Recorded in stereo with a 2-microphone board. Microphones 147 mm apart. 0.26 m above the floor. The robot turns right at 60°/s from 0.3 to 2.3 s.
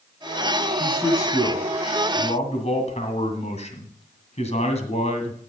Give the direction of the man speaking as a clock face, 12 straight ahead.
12 o'clock.